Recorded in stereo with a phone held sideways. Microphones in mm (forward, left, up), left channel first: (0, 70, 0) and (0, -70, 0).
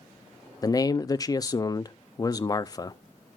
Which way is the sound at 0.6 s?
25° left (ahead or behind).